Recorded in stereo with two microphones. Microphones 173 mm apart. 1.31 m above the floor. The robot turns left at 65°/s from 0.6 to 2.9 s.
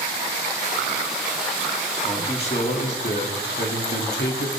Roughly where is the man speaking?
Behind.